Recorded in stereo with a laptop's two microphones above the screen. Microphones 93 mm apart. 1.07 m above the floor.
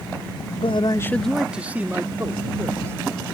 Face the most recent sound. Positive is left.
turn(degrees=-30)  # may be behind; listen again after turning